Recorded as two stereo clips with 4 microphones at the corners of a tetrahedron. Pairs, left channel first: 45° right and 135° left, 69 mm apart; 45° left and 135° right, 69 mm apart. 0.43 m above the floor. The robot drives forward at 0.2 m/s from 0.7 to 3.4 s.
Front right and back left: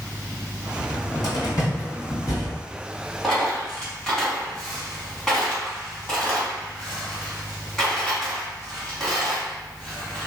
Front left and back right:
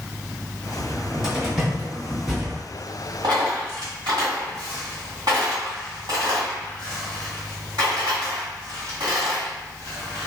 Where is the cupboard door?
55° right, 1.9 m; by 2.6 s 65° right, 1.8 m.